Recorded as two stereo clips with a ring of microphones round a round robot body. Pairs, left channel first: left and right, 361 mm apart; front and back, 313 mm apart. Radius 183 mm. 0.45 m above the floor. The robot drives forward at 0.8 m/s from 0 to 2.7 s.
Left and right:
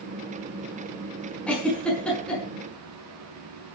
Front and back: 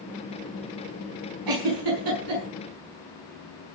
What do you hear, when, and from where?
1.5 s a giggle: 175° left, 5.5 m; by 2.4 s straight behind, 6.5 m